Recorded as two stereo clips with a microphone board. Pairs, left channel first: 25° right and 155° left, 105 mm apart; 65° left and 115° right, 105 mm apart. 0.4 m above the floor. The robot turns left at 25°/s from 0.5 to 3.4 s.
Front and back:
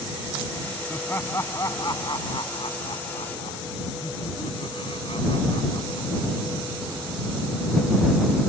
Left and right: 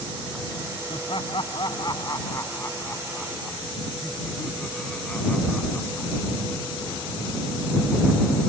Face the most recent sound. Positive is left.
turn(degrees=-15)